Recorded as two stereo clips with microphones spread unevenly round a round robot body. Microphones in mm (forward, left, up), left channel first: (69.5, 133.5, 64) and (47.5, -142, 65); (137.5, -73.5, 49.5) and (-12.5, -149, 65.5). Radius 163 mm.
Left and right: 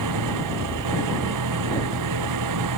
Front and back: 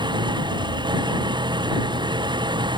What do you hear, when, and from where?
0.0 s an engine running: 90° right